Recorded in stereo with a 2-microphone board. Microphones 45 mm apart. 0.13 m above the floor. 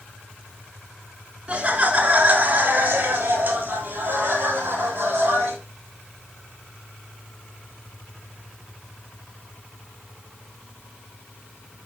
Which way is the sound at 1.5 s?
25° right (ahead or behind).